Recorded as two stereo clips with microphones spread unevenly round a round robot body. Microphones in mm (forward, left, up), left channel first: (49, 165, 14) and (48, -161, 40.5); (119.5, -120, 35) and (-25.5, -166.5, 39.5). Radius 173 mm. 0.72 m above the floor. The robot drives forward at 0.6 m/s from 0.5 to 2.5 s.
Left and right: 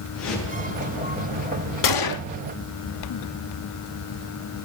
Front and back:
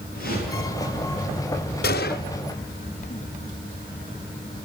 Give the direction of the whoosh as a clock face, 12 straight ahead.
7 o'clock.